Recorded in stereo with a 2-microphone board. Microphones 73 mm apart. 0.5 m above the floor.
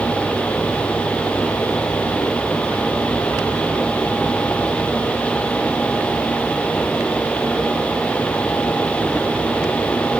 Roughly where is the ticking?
I don't hear ticking.